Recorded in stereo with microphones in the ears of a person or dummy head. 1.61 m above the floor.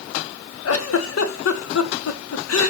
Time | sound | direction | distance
0.7 | a giggle | 70° left (ahead or behind) | 1.2 m